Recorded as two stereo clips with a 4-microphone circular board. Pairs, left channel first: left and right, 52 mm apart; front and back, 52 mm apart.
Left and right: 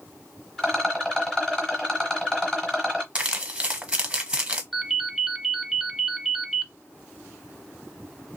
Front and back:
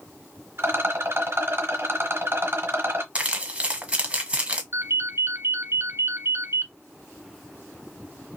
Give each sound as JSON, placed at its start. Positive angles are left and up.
{"t": 0.6, "sound": "a rattle", "azimuth_deg": 165, "distance_m": 1.6}
{"t": 3.1, "sound": "crumpling", "azimuth_deg": -140, "distance_m": 1.0}
{"t": 4.7, "sound": "a ringtone", "azimuth_deg": 175, "distance_m": 1.3}